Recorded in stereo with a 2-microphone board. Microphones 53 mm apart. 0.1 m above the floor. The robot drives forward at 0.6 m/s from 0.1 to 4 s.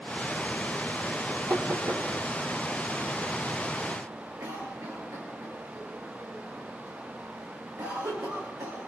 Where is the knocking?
55° right (ahead or behind), 3 m; by 2.0 s 60° right (ahead or behind), 3 m.